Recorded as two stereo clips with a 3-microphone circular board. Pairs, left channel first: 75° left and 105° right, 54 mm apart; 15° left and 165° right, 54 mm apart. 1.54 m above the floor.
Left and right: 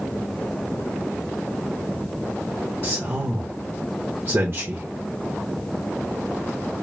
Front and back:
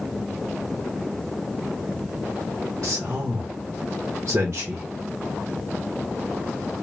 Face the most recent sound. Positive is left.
turn(degrees=-125)